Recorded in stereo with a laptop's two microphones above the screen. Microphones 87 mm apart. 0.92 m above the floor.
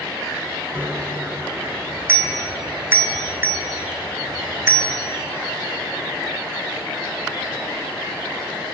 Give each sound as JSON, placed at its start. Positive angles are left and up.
{"t": 0.8, "sound": "a bicycle bell", "side_deg": -25, "distance_m": 2.0}